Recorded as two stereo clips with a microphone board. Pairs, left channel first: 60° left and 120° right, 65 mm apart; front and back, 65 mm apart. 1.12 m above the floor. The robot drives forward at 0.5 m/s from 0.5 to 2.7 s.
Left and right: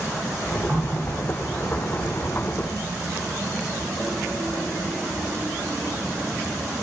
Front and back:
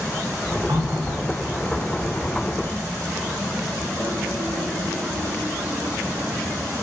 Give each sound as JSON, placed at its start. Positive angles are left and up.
{"t": 0.7, "sound": "a running tap", "azimuth_deg": 175, "distance_m": 1.8}